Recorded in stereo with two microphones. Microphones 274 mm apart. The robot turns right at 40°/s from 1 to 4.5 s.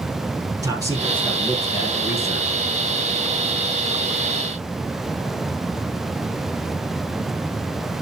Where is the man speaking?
15° right, 4 m; by 2.6 s 50° left, 4 m.